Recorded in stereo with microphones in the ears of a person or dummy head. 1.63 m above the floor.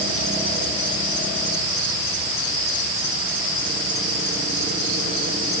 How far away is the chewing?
No chewing in this recording.